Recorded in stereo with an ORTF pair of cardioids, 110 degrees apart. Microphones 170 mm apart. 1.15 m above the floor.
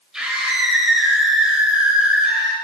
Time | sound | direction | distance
0.1 | a scream | 5° right | 6 m